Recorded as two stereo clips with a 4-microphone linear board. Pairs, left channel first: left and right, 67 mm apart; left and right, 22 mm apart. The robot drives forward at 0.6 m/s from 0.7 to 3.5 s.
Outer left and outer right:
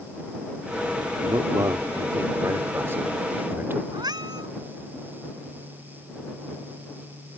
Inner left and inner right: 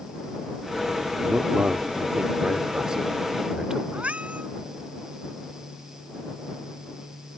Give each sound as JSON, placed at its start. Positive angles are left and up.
{"t": 1.2, "sound": "a man speaking", "side_deg": -65}
{"t": 3.9, "sound": "a cat meowing", "side_deg": -80}